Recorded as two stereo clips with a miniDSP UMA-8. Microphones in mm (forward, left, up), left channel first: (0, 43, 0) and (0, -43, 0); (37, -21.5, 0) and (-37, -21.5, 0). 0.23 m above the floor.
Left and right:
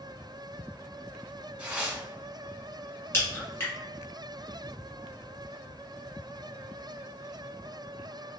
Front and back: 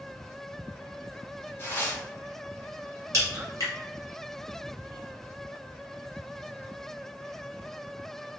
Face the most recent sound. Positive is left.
turn(degrees=145)